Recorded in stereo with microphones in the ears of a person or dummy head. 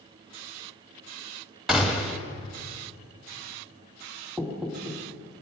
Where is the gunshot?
Centre (ahead or behind), 1.5 m.